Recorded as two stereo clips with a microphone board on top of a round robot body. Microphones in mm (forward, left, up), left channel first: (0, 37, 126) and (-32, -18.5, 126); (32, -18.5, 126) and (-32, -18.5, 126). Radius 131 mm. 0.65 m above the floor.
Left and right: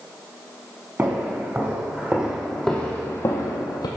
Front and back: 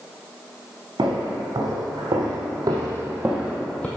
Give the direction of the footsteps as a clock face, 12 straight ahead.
6 o'clock.